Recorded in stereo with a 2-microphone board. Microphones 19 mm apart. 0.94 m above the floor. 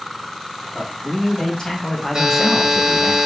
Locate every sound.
0.7 s a man speaking: 55° left (ahead or behind), 2 m; by 3.1 s 45° right (ahead or behind), 0.8 m
2.1 s a buzzer: 50° right (ahead or behind), 1.5 m